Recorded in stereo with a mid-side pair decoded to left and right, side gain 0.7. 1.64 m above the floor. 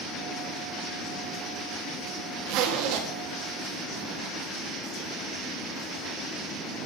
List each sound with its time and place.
2.5 s a zipper: 65° right, 2 m